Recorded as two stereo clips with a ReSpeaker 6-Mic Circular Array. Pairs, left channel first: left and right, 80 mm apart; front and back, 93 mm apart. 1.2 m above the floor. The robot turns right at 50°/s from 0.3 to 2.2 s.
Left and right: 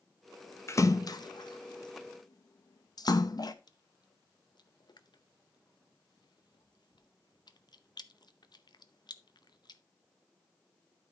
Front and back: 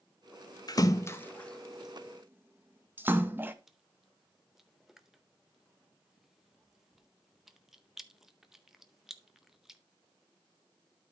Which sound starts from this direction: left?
Chewing, at 3.7 s.